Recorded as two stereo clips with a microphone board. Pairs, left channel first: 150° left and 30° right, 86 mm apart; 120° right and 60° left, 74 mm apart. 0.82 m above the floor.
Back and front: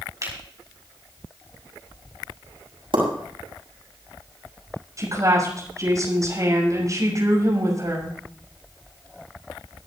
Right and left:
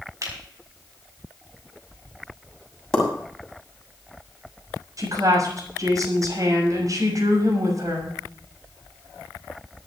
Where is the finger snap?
20° left, 6 m.